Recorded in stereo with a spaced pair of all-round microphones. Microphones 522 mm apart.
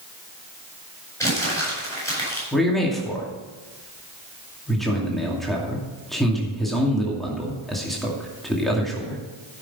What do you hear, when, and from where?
1.2 s crumpling: 5° left (ahead or behind), 7 m
2.5 s a man speaking: centre (ahead or behind), 2.5 m